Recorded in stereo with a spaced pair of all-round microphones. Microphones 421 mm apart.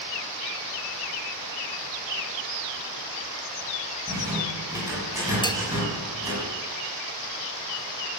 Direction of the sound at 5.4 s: 10° left (ahead or behind).